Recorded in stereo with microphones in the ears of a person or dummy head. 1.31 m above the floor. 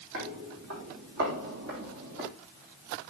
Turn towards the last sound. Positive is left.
turn(degrees=-55)  # may be behind; listen again after turning